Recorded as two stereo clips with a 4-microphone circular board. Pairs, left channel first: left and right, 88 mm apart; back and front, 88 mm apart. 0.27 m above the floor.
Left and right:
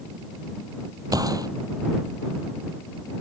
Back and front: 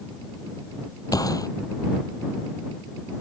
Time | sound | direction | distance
1.1 | a gunshot | 135° right | ?